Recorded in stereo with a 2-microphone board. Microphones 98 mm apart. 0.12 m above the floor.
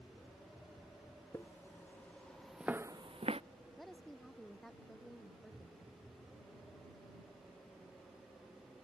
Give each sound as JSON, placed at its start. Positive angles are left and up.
{"t": 1.3, "sound": "footsteps", "side_deg": 25}
{"t": 3.8, "sound": "a woman speaking", "side_deg": 5}